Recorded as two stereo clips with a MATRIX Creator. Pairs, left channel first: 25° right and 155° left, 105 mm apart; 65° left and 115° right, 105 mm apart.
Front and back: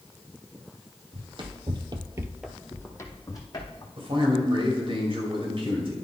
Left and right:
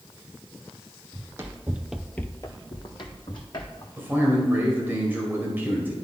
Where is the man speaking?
Straight behind, 2 m.